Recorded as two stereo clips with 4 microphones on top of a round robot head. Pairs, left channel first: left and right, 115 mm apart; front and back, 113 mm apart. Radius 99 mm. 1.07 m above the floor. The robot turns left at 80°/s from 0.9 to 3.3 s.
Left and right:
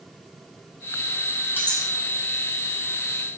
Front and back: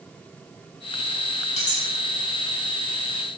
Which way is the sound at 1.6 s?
20° left.